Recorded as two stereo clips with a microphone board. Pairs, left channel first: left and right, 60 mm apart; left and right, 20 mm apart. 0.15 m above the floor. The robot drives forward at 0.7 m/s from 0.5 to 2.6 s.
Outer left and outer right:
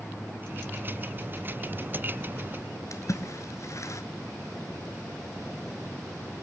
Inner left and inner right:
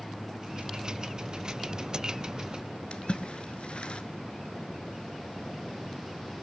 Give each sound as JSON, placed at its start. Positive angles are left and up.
{"t": 2.9, "sound": "a splash", "side_deg": 55, "distance_m": 1.0}